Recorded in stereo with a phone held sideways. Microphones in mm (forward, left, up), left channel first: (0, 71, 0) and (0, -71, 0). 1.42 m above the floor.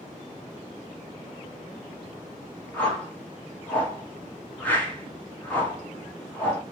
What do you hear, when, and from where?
2.7 s a whoosh: 10° left (ahead or behind), 1.2 m